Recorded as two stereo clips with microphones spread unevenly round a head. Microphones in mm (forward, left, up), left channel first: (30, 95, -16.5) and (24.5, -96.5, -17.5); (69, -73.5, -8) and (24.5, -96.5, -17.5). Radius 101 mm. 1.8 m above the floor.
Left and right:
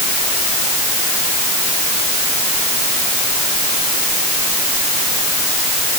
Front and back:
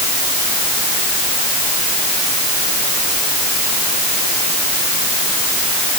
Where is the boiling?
I don't hear boiling.